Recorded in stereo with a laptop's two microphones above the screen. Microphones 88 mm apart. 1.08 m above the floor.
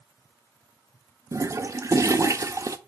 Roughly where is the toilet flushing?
Right.